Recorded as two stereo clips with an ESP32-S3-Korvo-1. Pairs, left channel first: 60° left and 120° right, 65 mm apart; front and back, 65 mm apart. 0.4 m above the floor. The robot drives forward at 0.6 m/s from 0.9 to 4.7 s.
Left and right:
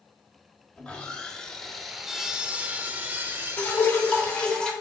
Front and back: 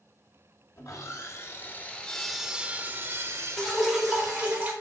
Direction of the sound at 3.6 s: 85° left.